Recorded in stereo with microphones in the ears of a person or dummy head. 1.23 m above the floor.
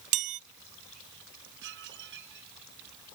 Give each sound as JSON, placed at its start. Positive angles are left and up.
{"t": 0.1, "sound": "a chime", "side_deg": -40}
{"t": 1.6, "sound": "dishes clattering", "side_deg": -60}